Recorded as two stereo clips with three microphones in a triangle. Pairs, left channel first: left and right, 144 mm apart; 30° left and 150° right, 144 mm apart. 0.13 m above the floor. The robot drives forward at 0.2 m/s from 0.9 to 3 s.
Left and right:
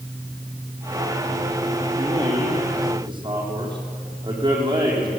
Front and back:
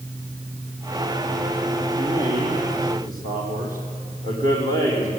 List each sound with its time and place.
2.0 s a man speaking: 145° right, 6 m